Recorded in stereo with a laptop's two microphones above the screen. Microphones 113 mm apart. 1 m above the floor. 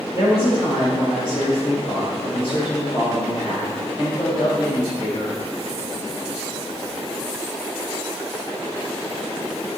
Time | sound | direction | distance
0.1 | a woman speaking | 55° left (ahead or behind) | 5 m